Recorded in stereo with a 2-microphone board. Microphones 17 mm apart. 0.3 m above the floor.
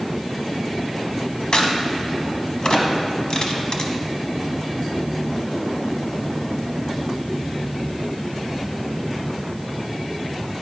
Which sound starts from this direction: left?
A crack, at 1.5 s.